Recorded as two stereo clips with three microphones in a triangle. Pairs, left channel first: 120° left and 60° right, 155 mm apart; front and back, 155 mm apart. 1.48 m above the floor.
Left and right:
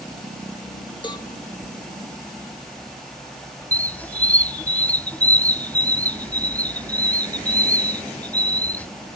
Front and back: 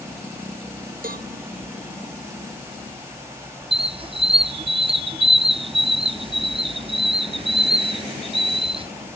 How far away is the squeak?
About 0.5 m.